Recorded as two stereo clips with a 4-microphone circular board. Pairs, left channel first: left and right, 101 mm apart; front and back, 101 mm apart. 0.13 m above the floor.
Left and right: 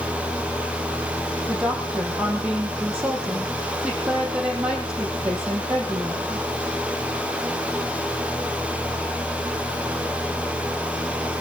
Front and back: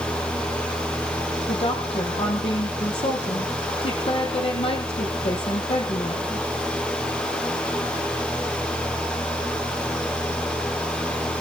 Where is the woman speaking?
10° right, 4.5 m.